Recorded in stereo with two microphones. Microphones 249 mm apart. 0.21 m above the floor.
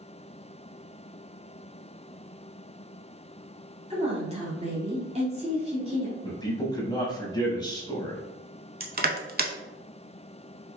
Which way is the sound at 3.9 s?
25° right (ahead or behind).